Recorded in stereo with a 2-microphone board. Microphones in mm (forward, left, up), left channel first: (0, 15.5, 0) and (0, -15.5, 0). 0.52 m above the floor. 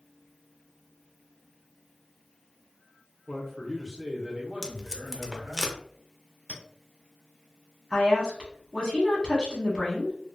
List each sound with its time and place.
3.3 s a man speaking: 20° left (ahead or behind), 0.7 m; by 5.6 s 45° right (ahead or behind), 1.2 m
4.6 s tape being pulled: 20° left (ahead or behind), 0.5 m
6.5 s a clink: 35° left (ahead or behind), 1.0 m
7.9 s a woman speaking: 20° left (ahead or behind), 1.0 m